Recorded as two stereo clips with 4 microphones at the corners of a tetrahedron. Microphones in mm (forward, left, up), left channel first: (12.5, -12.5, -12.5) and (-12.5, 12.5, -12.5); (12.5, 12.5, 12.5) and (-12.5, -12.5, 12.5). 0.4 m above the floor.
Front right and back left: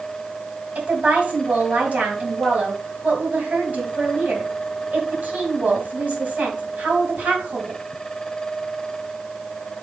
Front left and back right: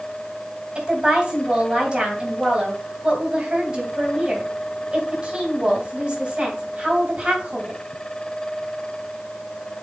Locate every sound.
0.8 s a woman speaking: 170° left, 3 m